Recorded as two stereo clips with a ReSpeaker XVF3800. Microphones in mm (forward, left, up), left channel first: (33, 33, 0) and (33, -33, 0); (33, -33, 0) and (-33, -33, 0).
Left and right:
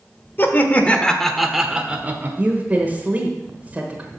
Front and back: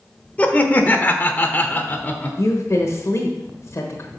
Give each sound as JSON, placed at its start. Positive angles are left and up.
{"t": 0.4, "sound": "laughter", "azimuth_deg": 55, "distance_m": 1.1}
{"t": 2.4, "sound": "a woman speaking", "azimuth_deg": -30, "distance_m": 1.2}